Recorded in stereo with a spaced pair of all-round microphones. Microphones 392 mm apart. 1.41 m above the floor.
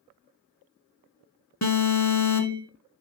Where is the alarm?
45° left (ahead or behind), 1.4 m.